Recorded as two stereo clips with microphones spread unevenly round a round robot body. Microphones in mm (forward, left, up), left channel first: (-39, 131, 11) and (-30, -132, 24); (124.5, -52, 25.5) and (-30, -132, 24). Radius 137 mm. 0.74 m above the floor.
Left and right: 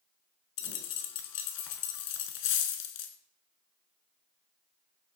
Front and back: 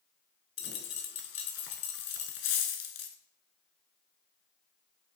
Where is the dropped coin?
60° left, 1.2 m.